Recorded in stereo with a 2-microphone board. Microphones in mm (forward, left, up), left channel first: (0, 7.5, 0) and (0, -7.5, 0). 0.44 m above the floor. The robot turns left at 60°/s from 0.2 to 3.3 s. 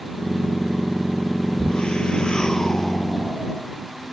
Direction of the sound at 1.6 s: 105° left.